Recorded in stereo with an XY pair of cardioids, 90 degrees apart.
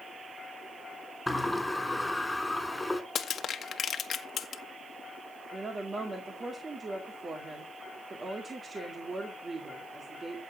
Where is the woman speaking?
40° right, 2 m.